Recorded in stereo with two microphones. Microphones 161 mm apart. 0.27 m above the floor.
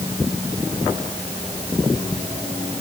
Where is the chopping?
I don't hear chopping.